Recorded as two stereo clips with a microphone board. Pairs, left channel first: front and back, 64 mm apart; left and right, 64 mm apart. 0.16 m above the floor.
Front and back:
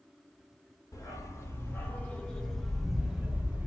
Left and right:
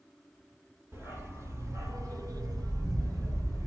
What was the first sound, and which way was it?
A dog barking, 40° right.